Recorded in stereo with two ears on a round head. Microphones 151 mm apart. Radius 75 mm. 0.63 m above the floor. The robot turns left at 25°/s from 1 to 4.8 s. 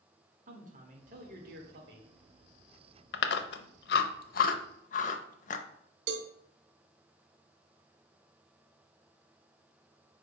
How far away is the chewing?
About 0.7 m.